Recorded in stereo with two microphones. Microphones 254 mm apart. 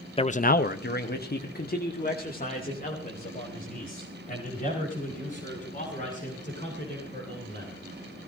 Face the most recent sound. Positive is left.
turn(degrees=30)  # may be behind; listen again after turning